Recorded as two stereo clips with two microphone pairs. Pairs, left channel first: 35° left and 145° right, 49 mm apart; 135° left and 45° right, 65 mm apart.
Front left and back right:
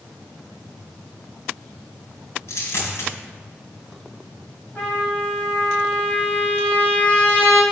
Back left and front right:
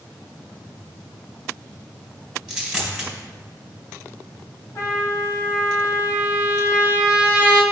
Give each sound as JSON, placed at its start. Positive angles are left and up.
{"t": 2.5, "sound": "a dropped coin", "azimuth_deg": 40, "distance_m": 2.0}
{"t": 4.8, "sound": "a trumpet", "azimuth_deg": 95, "distance_m": 1.8}